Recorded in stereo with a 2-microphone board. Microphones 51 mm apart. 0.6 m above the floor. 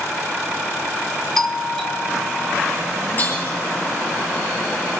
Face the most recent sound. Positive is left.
turn(degrees=35)  # may be behind; listen again after turning